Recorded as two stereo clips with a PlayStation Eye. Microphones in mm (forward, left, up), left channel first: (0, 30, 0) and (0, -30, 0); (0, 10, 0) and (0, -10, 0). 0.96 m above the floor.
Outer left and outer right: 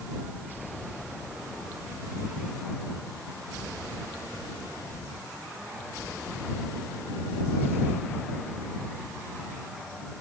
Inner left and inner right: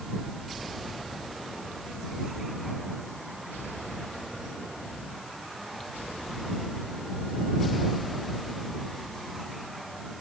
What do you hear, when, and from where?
Only background noise.